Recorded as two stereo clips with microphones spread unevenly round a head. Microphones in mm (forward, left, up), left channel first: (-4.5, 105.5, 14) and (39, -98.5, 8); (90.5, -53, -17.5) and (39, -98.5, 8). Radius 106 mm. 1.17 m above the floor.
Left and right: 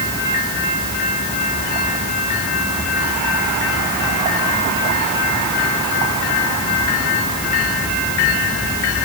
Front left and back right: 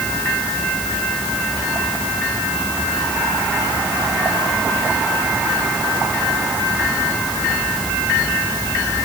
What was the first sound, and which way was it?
Only background noise.